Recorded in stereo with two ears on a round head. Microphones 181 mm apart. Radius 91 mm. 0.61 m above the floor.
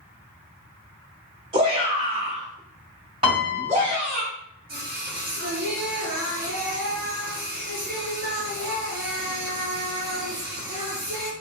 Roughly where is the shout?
Right.